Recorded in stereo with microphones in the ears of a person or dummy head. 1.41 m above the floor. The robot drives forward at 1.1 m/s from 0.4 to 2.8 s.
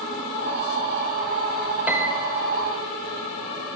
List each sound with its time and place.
1.9 s a piano: 10° right (ahead or behind), 1.8 m; by 2.3 s 5° right (ahead or behind), 2.5 m